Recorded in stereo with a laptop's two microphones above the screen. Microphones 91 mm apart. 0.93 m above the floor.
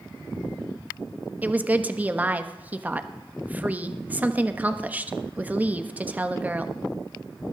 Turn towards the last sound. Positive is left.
turn(degrees=-15)  # may be behind; listen again after turning